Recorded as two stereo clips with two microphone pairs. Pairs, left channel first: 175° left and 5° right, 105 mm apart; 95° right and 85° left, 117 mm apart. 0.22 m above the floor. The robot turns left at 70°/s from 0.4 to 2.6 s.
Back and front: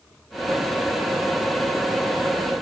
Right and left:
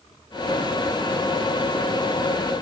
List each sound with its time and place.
Only background noise.